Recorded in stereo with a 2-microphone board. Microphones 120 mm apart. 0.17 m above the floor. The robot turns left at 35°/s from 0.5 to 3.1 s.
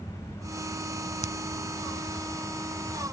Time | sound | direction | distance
1.2 | a finger snap | 75° left (ahead or behind) | ?